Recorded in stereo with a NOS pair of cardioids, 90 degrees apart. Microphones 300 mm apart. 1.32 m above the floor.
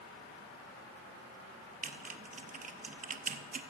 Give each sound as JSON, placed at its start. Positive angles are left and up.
{"t": 1.8, "sound": "typing on a keyboard", "azimuth_deg": -25, "distance_m": 0.8}